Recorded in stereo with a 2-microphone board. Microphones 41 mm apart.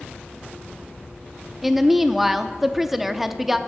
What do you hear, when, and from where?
1.6 s a woman speaking: 5° right (ahead or behind), 0.6 m